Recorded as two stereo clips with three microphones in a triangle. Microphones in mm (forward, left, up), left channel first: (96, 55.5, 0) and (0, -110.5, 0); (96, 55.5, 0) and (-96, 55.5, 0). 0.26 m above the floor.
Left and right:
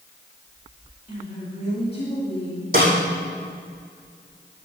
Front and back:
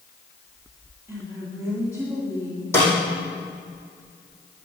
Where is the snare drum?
80° right, 4.5 m.